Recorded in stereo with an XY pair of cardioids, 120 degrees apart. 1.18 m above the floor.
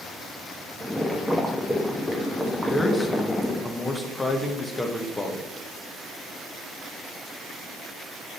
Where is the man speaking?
10° left, 1.5 m.